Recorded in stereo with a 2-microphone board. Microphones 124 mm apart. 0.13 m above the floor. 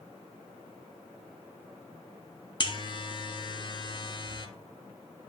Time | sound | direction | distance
2.6 | a buzzer | 40° left (ahead or behind) | 0.5 m